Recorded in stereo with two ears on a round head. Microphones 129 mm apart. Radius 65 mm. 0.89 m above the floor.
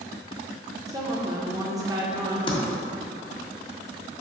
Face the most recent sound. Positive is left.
turn(degrees=35)  # may be behind; listen again after turning